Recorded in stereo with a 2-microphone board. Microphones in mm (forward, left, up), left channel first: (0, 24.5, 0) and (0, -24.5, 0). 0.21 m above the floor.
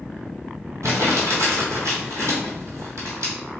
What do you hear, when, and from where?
0.8 s crumpling: 80° right, 1.2 m